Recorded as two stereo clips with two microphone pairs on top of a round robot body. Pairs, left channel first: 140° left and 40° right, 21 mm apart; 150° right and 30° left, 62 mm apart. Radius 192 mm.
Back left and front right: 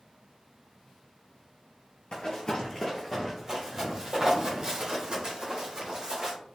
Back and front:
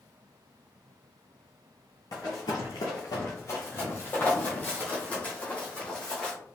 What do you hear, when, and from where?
2.1 s running footsteps: 170° left, 0.6 m; by 6.3 s 80° right, 2 m